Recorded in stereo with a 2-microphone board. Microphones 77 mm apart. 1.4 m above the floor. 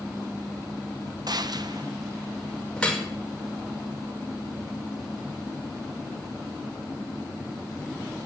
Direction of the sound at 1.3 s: 60° right (ahead or behind).